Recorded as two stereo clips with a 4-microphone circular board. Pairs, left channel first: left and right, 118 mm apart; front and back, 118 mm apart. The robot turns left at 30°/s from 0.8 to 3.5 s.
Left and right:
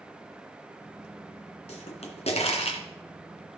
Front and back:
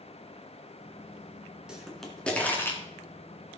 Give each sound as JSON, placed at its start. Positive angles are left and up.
{"t": 1.7, "sound": "a pop", "azimuth_deg": 95, "distance_m": 2.5}